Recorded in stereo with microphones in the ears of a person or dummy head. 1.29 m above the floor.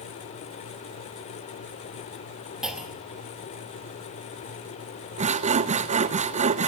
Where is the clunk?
5° right (ahead or behind), 2.5 m.